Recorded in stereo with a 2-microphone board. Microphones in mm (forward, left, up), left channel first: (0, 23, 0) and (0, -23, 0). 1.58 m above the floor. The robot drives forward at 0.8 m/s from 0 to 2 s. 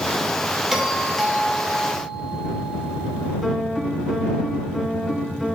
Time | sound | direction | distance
0.7 | a doorbell | 5° right (ahead or behind) | 1.3 m
3.4 | a piano | 5° right (ahead or behind) | 1.0 m